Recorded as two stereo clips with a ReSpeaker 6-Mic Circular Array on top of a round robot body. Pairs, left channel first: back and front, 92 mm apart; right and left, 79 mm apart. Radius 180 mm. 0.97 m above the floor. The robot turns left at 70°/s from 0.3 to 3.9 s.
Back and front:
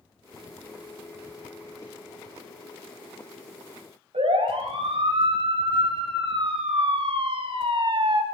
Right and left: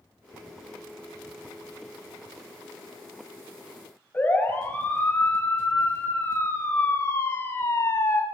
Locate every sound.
4.1 s a siren: 15° right, 7 m; by 8.2 s 35° right, 2.5 m